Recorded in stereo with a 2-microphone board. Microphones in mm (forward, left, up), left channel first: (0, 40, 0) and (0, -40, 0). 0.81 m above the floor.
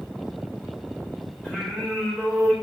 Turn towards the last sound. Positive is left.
turn(degrees=10)  # may be behind; listen again after turning